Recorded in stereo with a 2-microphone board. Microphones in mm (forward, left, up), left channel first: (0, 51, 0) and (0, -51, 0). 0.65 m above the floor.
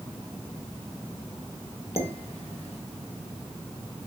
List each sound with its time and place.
2.0 s dishes clattering: 70° left (ahead or behind), 1.7 m